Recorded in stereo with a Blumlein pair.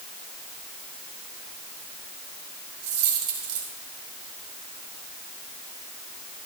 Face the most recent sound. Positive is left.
turn(degrees=-50)